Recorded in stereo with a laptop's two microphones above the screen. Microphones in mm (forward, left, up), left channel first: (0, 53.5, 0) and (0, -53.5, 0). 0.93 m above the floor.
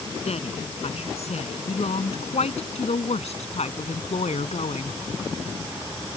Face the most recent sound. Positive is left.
turn(degrees=85)